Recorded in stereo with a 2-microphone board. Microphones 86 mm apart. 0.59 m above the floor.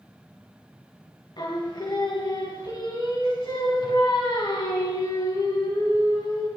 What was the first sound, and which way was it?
Singing, 60° left (ahead or behind).